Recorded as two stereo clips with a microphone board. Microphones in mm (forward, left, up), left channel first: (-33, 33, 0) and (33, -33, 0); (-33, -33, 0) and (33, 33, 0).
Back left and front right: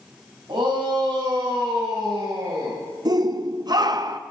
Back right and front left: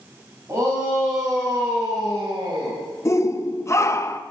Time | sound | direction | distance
0.5 | a shout | 15° right | 5.5 m
3.0 | a shout | 80° right | 0.9 m